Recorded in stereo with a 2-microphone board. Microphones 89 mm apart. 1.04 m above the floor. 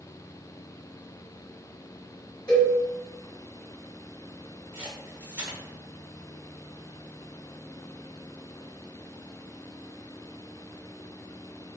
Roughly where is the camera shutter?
Centre.